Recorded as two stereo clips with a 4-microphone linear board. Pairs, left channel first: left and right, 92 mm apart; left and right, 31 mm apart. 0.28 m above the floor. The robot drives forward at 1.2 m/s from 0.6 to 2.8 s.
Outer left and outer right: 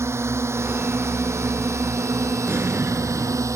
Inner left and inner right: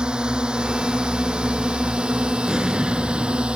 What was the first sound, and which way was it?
A drone, 30° right (ahead or behind).